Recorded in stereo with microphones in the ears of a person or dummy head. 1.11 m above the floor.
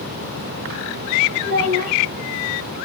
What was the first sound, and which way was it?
A child speaking, 60° right (ahead or behind).